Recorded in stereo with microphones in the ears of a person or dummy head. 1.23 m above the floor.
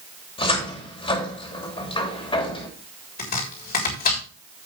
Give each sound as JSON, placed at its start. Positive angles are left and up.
{"t": 0.4, "sound": "a cupboard door", "side_deg": 35, "distance_m": 2.5}
{"t": 3.2, "sound": "chopping", "side_deg": 55, "distance_m": 3.5}